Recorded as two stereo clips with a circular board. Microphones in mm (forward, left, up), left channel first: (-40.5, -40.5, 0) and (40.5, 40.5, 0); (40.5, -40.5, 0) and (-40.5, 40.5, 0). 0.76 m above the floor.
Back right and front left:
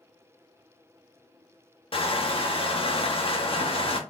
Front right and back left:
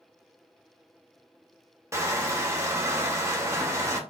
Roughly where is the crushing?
Behind.